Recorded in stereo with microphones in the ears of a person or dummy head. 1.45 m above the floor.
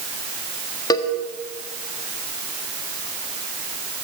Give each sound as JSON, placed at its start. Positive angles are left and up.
{"t": 0.9, "sound": "a cowbell", "side_deg": 25, "distance_m": 1.5}